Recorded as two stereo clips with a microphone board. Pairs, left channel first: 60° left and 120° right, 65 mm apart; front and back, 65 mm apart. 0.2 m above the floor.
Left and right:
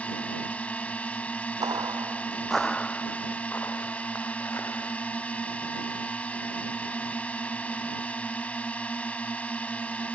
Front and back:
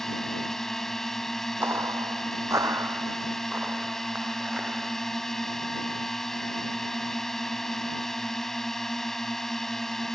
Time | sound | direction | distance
0.0 | a drone | 75° left | ?
1.6 | footsteps | 125° right | ?